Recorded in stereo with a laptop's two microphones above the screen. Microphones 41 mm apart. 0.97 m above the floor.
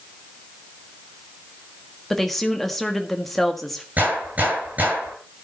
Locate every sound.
2.1 s a woman speaking: 5° left (ahead or behind), 1.4 m
4.0 s a gunshot: 40° right (ahead or behind), 10 m